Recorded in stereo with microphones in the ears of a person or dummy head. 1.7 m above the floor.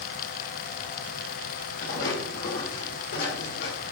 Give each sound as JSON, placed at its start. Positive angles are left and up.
{"t": 1.8, "sound": "footsteps", "side_deg": 55, "distance_m": 4.0}